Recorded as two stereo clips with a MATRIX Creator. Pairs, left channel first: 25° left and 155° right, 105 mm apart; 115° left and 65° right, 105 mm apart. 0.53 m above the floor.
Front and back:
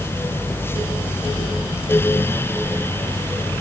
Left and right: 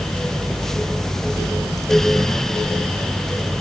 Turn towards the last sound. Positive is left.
No sound to turn to.